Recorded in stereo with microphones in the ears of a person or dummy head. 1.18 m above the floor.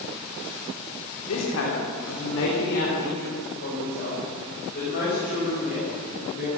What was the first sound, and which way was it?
A woman speaking, 85° left.